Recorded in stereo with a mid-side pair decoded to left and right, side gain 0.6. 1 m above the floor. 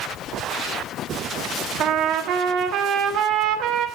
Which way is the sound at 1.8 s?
60° right.